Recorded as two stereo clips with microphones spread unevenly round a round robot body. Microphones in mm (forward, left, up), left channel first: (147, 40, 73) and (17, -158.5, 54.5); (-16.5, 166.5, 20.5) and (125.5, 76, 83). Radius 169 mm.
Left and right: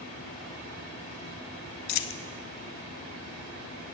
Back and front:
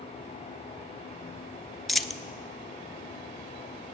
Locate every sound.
1.9 s a dropped coin: 60° left, 0.6 m